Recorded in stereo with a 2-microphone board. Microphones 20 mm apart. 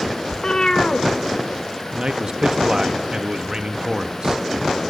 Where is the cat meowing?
50° left (ahead or behind), 0.9 m.